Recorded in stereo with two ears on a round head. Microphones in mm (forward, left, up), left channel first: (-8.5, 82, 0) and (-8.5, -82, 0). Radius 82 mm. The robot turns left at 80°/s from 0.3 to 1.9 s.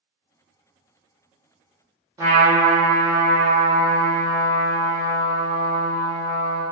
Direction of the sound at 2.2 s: 15° right (ahead or behind).